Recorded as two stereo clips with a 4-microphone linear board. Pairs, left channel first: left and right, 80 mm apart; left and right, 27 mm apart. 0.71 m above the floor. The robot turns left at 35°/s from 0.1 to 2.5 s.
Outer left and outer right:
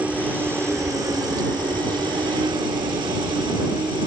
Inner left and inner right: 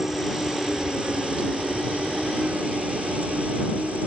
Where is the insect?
20° right; by 4.1 s 105° right.